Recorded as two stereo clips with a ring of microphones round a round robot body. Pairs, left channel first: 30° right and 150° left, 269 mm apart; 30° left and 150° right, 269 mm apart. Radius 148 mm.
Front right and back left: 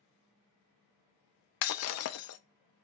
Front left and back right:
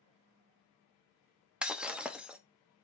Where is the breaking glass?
65° right, 0.6 m.